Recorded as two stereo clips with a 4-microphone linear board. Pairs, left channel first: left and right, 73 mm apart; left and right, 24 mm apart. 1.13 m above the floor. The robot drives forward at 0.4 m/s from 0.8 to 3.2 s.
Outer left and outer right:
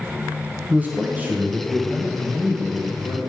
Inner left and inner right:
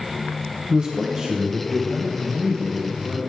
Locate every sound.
0.7 s a man speaking: 25° right (ahead or behind), 0.7 m; by 3.2 s 10° right (ahead or behind), 1.3 m